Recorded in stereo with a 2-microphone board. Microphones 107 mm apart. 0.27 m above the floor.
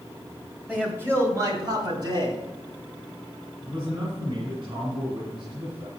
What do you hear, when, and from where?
0.7 s a man speaking: 10° right (ahead or behind), 1.4 m; by 2.4 s 45° right (ahead or behind), 2 m
3.6 s a man speaking: 45° right (ahead or behind), 2.5 m